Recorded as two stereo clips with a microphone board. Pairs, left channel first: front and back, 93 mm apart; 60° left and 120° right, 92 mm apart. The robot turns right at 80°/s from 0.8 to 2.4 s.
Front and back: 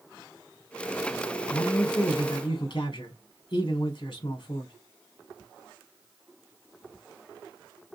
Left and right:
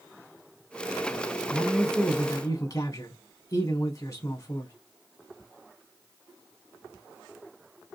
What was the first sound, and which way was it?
A man speaking, 50° right.